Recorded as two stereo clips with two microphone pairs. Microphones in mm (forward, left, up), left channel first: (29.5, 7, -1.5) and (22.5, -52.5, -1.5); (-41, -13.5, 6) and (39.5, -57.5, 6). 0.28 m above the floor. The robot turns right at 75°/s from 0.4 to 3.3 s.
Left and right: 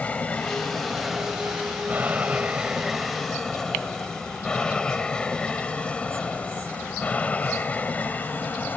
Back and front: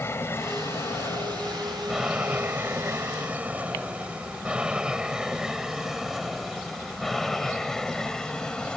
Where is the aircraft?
125° left; by 8.8 s 80° left.